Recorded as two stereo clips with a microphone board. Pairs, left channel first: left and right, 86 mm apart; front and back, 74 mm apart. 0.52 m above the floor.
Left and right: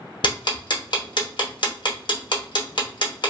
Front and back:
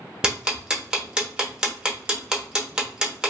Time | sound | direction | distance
0.2 | ticking | 100° left | 0.7 m